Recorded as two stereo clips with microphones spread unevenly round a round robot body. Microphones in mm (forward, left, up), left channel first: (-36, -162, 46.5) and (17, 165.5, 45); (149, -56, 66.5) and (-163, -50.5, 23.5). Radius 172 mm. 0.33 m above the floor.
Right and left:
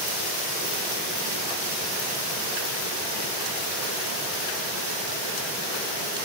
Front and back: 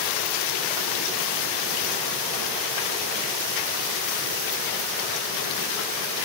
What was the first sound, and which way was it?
Only background noise.